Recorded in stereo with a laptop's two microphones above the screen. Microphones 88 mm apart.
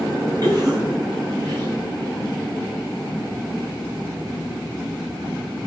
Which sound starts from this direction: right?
A cough, at 0.4 s.